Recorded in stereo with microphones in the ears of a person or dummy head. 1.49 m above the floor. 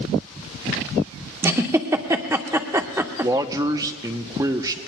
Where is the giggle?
15° right (ahead or behind), 0.5 m.